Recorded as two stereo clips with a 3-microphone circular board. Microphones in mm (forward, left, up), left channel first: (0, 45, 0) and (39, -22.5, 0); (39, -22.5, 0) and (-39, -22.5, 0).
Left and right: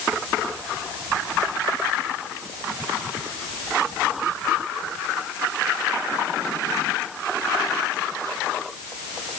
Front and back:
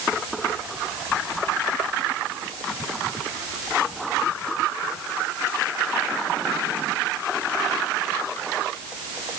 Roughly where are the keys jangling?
No keys jangling in this recording.